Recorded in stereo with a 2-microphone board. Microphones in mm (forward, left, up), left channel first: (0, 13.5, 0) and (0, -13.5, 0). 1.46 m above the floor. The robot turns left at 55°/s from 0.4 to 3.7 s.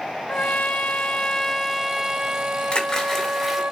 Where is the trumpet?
80° left, 0.7 m; by 3.7 s 105° right, 0.7 m.